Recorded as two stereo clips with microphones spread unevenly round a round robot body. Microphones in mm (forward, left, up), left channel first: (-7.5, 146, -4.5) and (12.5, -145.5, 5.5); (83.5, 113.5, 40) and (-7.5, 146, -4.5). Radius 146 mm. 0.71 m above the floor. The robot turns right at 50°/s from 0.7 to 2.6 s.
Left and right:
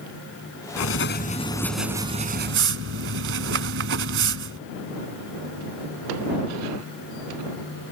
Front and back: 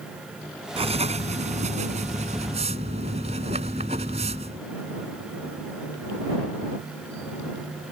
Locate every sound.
0.8 s writing: 135° left; by 4.7 s 135° right